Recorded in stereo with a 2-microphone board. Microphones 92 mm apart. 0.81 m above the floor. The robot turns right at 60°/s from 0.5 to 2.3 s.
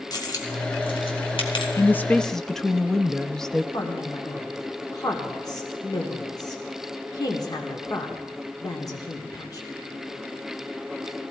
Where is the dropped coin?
45° left (ahead or behind), 2.5 m; by 1.7 s 65° left (ahead or behind), 2.5 m.